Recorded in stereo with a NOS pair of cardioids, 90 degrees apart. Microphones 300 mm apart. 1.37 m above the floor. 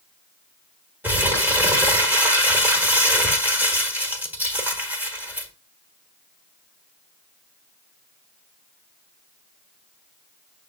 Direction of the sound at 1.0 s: 5° right.